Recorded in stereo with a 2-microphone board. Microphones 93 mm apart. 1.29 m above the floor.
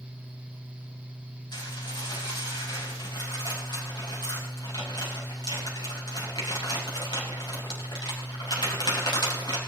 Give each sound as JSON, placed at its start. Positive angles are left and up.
{"t": 1.5, "sound": "dishes clattering", "side_deg": 50, "distance_m": 5.5}